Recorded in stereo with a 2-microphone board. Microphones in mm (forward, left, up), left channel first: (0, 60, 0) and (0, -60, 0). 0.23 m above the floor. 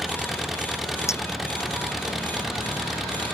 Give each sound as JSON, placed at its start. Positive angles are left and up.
{"t": 0.0, "sound": "an engine running", "side_deg": 0}
{"t": 1.1, "sound": "a clink", "side_deg": 25}